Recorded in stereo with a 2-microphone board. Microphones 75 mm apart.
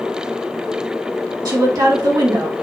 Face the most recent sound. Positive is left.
turn(degrees=-60)  # may be behind; listen again after turning